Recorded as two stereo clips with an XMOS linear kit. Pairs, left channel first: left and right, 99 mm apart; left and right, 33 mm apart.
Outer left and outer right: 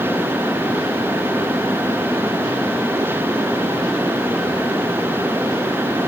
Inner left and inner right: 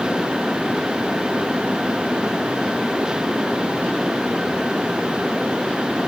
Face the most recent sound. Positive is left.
No sound to turn to.